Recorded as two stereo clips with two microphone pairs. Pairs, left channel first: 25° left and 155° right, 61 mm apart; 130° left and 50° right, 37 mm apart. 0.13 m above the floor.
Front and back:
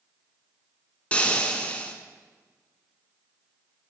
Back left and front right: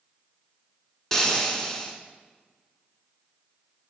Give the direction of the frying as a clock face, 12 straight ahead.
10 o'clock.